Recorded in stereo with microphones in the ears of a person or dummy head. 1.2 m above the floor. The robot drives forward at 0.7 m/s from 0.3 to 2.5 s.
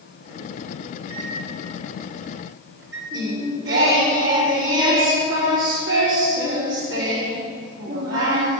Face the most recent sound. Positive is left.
turn(degrees=-80)